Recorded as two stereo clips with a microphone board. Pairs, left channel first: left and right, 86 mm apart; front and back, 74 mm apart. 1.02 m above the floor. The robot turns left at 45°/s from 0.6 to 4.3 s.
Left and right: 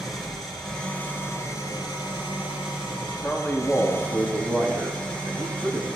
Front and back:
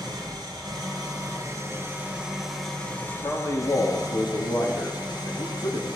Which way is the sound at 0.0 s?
175° left.